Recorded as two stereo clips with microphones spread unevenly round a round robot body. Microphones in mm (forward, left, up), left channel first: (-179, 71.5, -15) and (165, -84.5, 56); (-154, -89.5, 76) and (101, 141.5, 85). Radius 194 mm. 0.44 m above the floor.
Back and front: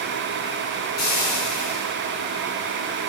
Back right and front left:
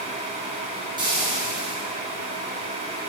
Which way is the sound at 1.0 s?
120° left.